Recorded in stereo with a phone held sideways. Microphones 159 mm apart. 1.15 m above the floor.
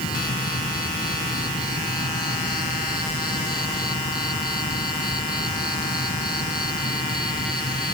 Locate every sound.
0.0 s an insect: 70° left (ahead or behind)